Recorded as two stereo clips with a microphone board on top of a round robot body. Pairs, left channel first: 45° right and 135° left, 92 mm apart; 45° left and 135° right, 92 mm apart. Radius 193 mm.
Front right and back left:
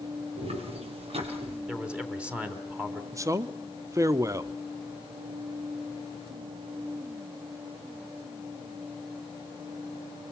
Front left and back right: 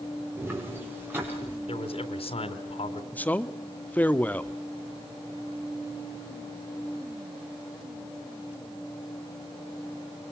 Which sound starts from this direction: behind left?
Footsteps, at 0.4 s.